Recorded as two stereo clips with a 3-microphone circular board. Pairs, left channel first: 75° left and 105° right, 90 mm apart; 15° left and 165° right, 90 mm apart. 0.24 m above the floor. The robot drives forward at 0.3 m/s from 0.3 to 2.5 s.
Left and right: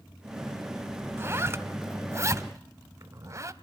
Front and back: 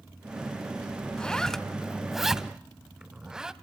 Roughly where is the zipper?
Ahead right.